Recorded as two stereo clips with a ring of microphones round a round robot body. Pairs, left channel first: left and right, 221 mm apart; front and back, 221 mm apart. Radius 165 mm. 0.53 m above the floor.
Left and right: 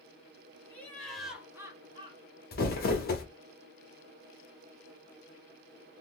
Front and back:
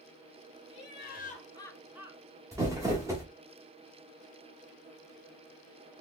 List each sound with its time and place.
0.7 s laughter: 10° left, 1.7 m; by 2.4 s 140° right, 1.4 m
2.5 s crumpling: 110° left, 0.9 m